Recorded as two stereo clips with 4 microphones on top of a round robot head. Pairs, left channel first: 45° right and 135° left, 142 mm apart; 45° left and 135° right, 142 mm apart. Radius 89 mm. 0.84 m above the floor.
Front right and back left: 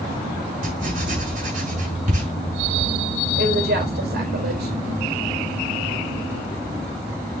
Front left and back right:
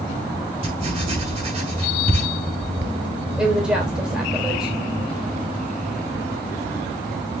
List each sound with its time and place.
0.6 s writing: 175° left, 6.5 m
3.4 s a woman speaking: 145° left, 4 m